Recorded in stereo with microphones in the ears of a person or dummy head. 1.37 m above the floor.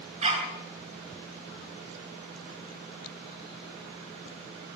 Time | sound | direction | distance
0.2 | a dog barking | 35° right (ahead or behind) | 8 m